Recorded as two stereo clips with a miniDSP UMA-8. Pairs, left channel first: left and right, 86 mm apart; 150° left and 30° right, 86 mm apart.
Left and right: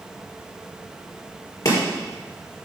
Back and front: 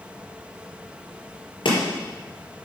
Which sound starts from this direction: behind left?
Chopping, at 1.6 s.